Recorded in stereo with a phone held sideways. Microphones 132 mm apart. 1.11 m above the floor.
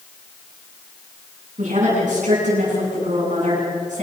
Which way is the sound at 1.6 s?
70° right (ahead or behind).